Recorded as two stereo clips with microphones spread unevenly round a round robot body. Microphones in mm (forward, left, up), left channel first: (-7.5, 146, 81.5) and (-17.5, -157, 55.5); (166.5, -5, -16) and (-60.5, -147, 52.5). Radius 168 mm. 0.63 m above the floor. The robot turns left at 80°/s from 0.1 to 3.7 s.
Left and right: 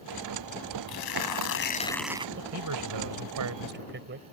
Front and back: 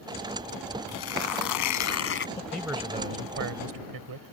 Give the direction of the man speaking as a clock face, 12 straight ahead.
1 o'clock.